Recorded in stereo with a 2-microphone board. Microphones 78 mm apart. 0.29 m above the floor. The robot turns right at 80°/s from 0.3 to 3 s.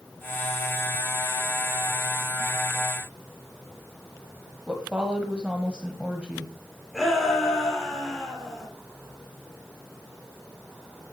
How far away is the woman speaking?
About 1.7 m.